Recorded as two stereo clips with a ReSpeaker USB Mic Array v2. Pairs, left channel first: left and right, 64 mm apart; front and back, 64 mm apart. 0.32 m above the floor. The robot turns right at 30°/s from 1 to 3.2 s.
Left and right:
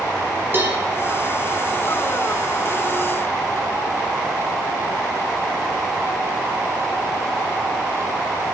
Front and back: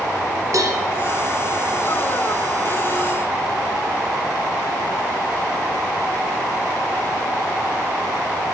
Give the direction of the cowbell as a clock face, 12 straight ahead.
5 o'clock.